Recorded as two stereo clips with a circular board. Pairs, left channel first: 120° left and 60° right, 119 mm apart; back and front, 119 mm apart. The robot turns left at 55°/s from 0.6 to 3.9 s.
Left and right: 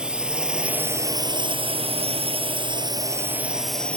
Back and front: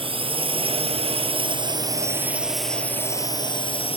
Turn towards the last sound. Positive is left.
turn(degrees=-160)